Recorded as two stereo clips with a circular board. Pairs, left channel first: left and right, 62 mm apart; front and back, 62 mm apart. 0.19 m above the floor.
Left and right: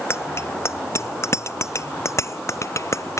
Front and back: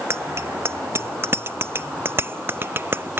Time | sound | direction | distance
0.1 | a bicycle bell | 135° left | ?